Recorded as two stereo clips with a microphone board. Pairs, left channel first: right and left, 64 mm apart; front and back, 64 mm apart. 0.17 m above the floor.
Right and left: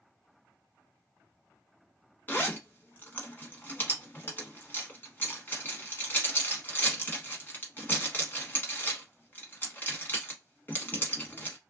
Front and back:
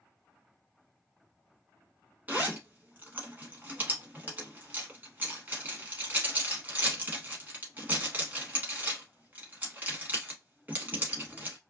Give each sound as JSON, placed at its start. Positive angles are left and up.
{"t": 2.3, "sound": "a zipper", "azimuth_deg": -135, "distance_m": 1.0}